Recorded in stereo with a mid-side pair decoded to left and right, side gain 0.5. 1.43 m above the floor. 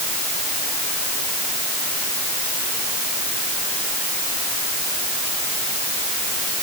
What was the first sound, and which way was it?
Only background noise.